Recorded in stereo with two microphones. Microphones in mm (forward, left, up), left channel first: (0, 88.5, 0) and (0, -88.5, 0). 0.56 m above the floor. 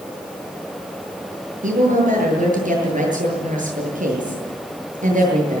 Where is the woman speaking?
45° right (ahead or behind), 8.5 m.